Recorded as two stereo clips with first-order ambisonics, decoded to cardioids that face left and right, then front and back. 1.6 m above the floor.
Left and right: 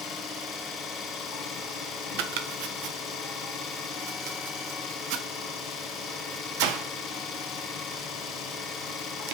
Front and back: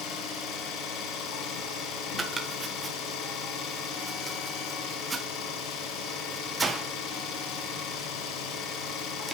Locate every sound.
0.0 s an engine running: 30° left, 4.5 m
2.2 s chopping: 100° right, 1.3 m